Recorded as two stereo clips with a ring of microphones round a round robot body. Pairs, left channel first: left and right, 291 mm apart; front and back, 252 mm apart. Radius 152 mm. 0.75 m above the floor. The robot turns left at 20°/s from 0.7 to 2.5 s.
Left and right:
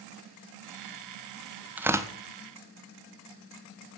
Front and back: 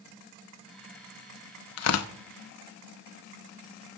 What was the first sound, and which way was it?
Tearing paper, 5° right.